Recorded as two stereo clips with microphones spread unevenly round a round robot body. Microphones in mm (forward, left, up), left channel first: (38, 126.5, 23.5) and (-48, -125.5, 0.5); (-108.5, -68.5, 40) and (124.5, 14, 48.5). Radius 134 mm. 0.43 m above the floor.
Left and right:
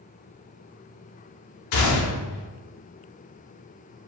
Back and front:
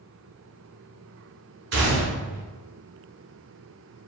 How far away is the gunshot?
About 0.8 m.